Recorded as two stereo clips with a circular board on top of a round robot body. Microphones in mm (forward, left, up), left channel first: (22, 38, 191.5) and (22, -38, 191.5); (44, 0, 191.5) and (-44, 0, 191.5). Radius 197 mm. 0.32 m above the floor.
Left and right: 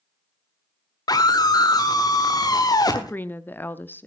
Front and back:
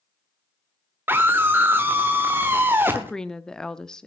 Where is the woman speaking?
70° left, 1.0 m.